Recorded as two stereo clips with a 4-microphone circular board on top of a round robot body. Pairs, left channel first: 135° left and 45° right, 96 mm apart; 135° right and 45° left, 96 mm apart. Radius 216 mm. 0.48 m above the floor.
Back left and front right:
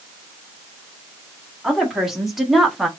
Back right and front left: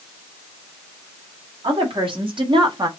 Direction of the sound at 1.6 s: 40° left.